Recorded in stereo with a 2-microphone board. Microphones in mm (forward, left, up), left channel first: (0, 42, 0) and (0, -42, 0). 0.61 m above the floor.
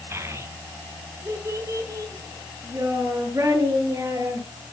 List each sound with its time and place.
0.1 s a child speaking: 30° right (ahead or behind), 1.9 m; by 4.5 s 35° right (ahead or behind), 6.5 m